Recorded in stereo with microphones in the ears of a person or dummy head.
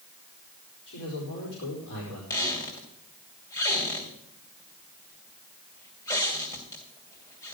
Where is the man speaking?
65° left (ahead or behind), 4.5 m.